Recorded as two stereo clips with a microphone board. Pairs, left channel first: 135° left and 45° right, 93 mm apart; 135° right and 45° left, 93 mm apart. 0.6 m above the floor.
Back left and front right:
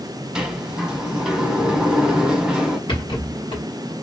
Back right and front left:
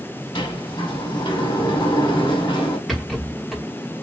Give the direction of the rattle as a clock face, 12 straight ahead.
7 o'clock.